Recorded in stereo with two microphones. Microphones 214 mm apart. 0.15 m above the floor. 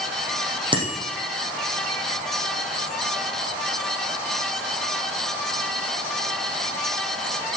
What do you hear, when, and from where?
0.7 s a bicycle bell: 25° right (ahead or behind), 4.5 m